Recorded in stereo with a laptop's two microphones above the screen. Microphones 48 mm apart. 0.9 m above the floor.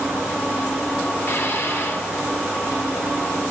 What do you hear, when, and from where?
1.2 s dishes clattering: 50° left (ahead or behind), 5 m